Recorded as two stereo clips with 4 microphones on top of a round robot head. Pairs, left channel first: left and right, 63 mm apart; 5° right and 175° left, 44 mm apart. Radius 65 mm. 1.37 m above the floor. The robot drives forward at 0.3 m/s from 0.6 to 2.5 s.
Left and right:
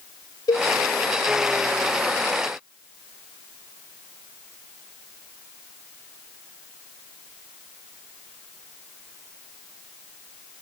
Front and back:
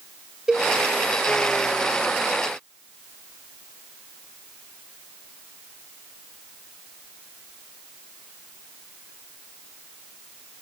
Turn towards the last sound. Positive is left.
turn(degrees=115)